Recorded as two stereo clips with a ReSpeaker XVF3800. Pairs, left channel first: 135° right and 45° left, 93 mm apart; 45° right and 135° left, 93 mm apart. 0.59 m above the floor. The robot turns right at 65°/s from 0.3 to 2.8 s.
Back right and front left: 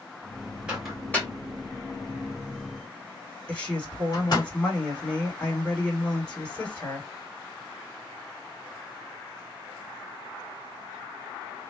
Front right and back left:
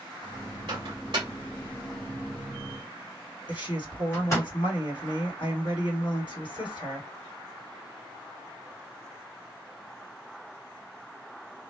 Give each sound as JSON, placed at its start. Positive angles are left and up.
{"t": 0.7, "sound": "a microwave", "azimuth_deg": 120, "distance_m": 1.8}
{"t": 3.5, "sound": "a woman speaking", "azimuth_deg": -60, "distance_m": 2.0}